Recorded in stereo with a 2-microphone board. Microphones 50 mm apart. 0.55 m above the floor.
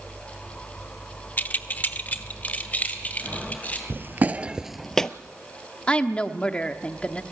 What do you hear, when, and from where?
1.4 s keys jangling: 35° left (ahead or behind), 0.7 m
3.9 s footsteps: 50° right (ahead or behind), 0.7 m; by 5.1 s 15° left (ahead or behind), 0.7 m
5.9 s a woman speaking: 20° left (ahead or behind), 0.9 m